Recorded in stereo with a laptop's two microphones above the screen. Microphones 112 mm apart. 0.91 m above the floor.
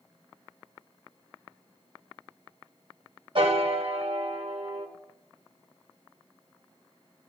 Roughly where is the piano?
Right.